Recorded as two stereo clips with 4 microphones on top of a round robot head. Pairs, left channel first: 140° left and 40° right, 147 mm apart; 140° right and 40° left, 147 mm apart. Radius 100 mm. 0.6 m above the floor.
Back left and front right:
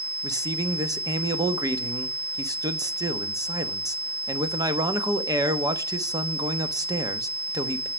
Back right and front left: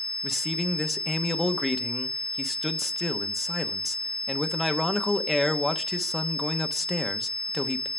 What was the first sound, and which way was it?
A man speaking, 50° right.